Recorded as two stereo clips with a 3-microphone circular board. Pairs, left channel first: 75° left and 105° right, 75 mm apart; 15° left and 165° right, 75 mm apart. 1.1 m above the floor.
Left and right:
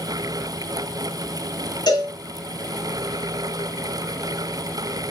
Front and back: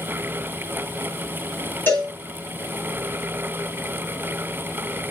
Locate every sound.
1.9 s a cowbell: 75° left, 3.5 m